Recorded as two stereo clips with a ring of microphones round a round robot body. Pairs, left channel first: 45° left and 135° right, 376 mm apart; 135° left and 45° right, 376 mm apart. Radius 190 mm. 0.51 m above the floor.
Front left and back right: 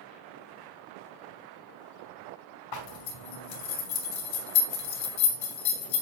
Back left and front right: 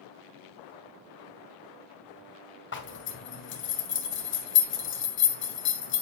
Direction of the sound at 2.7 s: 75° left.